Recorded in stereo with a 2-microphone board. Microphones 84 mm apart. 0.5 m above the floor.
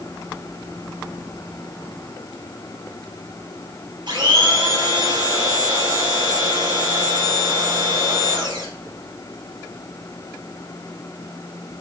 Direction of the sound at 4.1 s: 60° right (ahead or behind).